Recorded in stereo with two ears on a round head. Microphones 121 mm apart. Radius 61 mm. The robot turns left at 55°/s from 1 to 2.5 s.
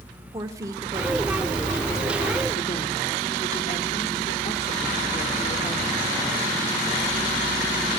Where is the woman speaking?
150° right, 1.6 m; by 6.2 s 125° left, 1.6 m.